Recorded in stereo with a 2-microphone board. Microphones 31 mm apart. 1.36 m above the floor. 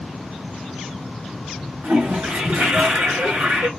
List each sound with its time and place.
1.8 s a toilet flushing: 75° right (ahead or behind), 1.2 m